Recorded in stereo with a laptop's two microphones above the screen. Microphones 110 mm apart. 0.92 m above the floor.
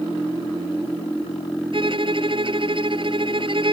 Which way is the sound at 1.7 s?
50° right (ahead or behind).